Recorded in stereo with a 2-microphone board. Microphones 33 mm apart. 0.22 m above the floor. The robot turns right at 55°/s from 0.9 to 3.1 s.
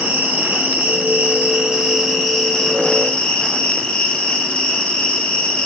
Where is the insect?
70° right, 0.8 m; by 5.7 s 55° left, 0.8 m.